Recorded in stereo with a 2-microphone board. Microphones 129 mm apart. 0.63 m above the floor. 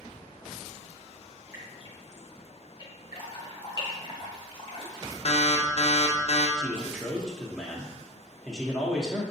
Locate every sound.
1.5 s dripping: 30° right (ahead or behind), 1.8 m
3.1 s dripping: 40° left (ahead or behind), 1.1 m
5.2 s an alarm: 50° left (ahead or behind), 0.7 m
6.6 s a man speaking: 5° left (ahead or behind), 0.7 m